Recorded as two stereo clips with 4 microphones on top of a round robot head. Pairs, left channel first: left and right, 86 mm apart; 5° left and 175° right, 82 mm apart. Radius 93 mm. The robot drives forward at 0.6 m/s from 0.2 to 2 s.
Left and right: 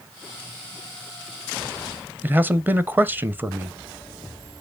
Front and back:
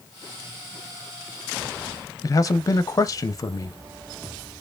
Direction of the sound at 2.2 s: 25° right.